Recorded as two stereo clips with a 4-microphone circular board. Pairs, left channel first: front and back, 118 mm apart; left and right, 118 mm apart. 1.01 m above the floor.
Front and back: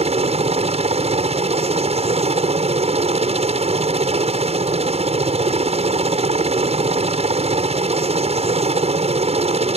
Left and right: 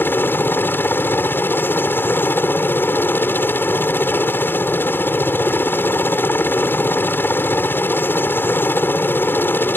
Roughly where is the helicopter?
Behind.